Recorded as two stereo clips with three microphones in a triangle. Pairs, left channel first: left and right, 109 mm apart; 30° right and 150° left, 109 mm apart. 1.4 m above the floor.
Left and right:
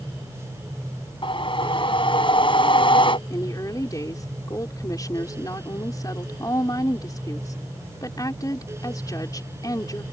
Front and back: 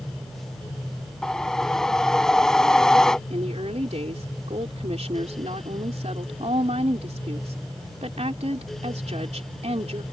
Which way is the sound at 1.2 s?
55° left.